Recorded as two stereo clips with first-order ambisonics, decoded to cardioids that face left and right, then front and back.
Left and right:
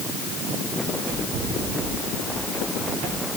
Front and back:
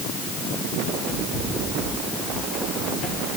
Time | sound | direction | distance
0.8 | running footsteps | 60° right | 8.5 m